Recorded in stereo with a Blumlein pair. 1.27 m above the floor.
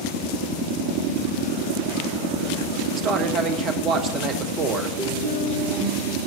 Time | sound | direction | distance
3.0 | a man speaking | 35° right | 1.2 m
5.0 | a guitar | 40° right | 5.5 m